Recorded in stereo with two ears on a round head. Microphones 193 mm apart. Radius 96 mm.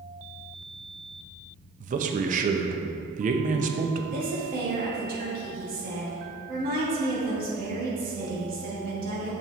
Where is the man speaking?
35° right (ahead or behind), 0.7 m.